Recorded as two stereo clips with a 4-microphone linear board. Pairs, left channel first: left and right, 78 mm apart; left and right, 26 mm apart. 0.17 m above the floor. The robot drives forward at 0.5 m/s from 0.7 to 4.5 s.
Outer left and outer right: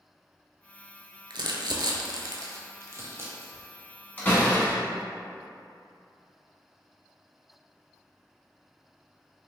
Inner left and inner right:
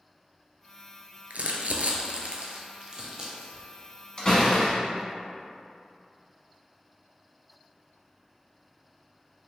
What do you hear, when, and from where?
1.3 s crumpling: 75° right (ahead or behind), 0.5 m; by 3.6 s 25° right (ahead or behind), 1.2 m
4.2 s a door slam: 25° left (ahead or behind), 1.3 m